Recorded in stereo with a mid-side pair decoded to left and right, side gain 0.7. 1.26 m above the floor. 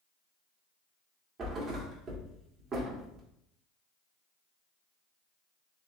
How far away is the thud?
About 1.8 m.